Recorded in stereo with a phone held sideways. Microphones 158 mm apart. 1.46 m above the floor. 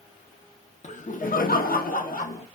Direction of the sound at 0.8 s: 50° left (ahead or behind).